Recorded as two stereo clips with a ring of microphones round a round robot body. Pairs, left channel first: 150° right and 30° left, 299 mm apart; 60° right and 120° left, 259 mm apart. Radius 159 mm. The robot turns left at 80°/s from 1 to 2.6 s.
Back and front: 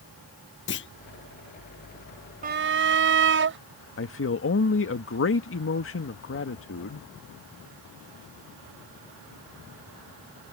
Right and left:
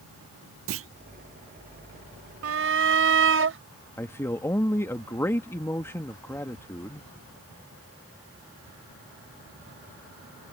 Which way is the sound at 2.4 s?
95° left.